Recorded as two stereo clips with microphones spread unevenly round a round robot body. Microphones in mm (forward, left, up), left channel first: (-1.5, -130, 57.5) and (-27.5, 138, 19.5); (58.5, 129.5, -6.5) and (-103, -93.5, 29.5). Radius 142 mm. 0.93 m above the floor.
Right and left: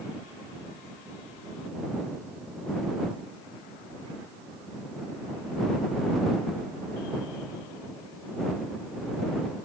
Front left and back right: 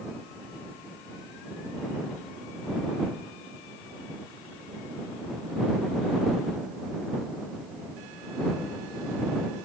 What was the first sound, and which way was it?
Only background noise.